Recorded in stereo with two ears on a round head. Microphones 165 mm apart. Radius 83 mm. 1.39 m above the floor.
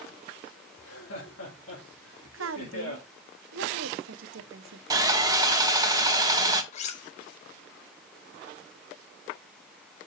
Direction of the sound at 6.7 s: 40° left (ahead or behind).